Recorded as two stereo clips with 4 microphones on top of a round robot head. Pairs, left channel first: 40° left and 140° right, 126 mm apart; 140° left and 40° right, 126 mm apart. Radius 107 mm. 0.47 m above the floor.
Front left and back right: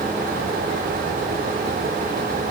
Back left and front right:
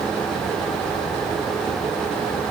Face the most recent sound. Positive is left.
No sound to turn to.